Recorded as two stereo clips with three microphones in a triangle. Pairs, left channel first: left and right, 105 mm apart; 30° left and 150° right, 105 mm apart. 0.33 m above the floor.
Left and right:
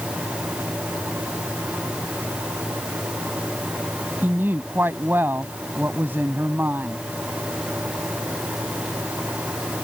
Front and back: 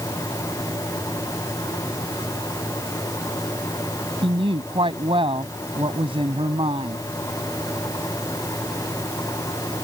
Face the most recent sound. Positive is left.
turn(degrees=-155)